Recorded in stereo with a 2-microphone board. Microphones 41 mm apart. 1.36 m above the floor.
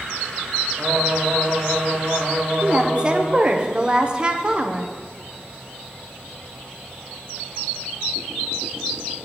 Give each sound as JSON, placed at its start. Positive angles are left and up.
{"t": 0.8, "sound": "singing", "side_deg": -35, "distance_m": 2.0}
{"t": 2.6, "sound": "a woman speaking", "side_deg": -25, "distance_m": 0.8}